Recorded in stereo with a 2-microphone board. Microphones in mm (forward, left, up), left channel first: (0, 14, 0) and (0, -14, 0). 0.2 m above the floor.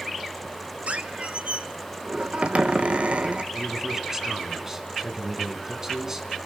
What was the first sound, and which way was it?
A squeak, 60° right (ahead or behind).